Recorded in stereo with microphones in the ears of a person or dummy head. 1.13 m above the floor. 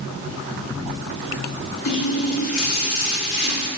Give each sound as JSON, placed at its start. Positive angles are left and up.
{"t": 1.9, "sound": "a running tap", "side_deg": 80, "distance_m": 1.3}